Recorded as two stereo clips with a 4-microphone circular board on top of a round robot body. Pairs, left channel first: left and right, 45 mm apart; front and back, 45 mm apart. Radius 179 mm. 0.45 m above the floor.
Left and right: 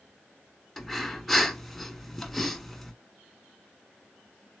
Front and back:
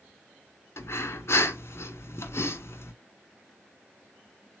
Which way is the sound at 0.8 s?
Straight ahead.